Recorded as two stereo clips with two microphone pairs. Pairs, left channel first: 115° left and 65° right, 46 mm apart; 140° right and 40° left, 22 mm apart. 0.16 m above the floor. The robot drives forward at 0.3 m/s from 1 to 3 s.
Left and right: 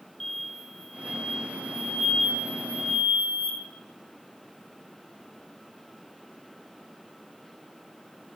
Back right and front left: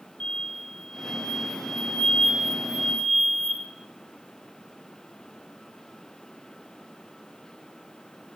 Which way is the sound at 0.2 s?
160° right.